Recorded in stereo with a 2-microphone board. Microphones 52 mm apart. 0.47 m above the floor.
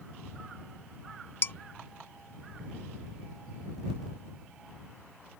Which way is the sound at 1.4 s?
45° left (ahead or behind).